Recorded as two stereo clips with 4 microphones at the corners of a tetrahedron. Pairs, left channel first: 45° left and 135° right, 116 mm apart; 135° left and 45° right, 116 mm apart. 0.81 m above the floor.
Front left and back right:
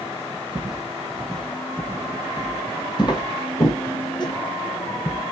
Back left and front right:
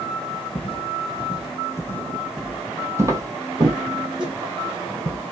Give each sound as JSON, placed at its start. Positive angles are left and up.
{"t": 0.6, "sound": "footsteps", "azimuth_deg": 145, "distance_m": 1.3}